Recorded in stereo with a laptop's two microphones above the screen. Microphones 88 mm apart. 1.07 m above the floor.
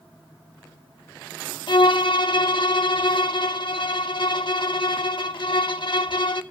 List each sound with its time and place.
1.7 s a violin: 60° left (ahead or behind), 0.8 m